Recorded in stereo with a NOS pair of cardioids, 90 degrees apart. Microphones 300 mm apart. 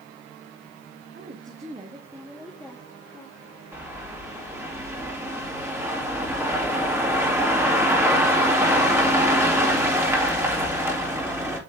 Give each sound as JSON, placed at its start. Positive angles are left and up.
{"t": 1.1, "sound": "a woman speaking", "azimuth_deg": -40, "distance_m": 1.3}
{"t": 3.7, "sound": "a bird", "azimuth_deg": -10, "distance_m": 2.5}